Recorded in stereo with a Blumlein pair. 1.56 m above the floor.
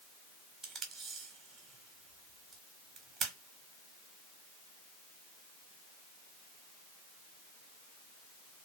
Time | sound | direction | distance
0.6 | tape being pulled | 20° right | 0.9 m